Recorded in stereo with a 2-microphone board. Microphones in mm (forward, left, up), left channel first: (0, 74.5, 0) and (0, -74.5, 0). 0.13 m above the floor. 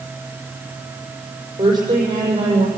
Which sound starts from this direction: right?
A woman speaking, at 1.6 s.